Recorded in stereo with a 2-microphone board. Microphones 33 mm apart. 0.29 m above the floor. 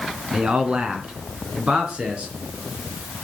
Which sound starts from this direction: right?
A man speaking, at 0.3 s.